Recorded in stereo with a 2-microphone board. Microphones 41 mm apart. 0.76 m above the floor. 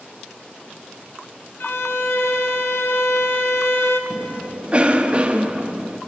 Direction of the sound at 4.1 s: 30° right (ahead or behind).